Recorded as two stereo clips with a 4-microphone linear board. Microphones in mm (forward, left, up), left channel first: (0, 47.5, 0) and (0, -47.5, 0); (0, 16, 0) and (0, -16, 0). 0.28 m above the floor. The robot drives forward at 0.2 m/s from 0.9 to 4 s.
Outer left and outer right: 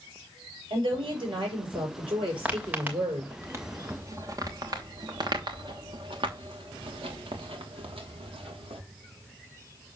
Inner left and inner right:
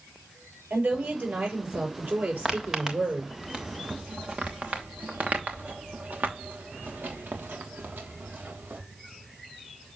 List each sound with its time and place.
0.7 s a woman speaking: 65° right (ahead or behind), 6.5 m; by 3.3 s 70° right (ahead or behind), 6 m
2.5 s footsteps: 15° right (ahead or behind), 2.5 m; by 8.8 s 85° right, 3.5 m